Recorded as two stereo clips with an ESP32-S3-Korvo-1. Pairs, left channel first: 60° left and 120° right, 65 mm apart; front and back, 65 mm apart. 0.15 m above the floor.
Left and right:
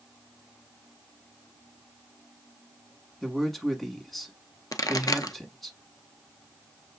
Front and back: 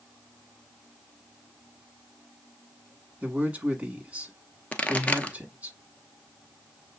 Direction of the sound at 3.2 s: 145° left.